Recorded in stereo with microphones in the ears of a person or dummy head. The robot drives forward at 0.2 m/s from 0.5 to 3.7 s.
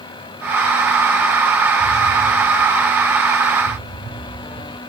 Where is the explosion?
20° right (ahead or behind), 1.6 m.